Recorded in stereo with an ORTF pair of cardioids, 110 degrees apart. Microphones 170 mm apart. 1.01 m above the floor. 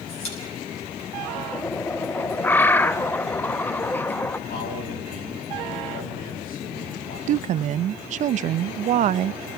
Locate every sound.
0.1 s a pop: 40° left, 7 m
1.5 s a bird: 10° left, 0.8 m
4.5 s a man speaking: 65° left, 8 m
7.3 s a woman speaking: 50° right, 0.5 m